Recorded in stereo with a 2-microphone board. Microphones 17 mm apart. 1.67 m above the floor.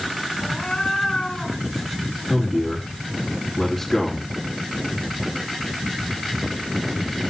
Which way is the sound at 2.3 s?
10° left (ahead or behind).